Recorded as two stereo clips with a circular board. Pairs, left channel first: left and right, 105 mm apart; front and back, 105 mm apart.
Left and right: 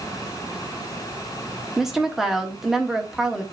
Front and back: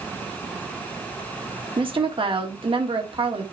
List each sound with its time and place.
1.8 s a woman speaking: 175° right, 1.5 m